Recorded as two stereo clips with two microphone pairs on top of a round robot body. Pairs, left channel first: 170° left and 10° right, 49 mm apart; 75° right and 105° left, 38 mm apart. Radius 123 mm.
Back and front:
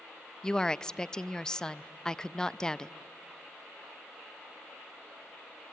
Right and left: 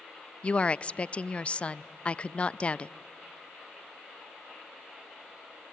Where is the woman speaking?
125° right, 0.5 m.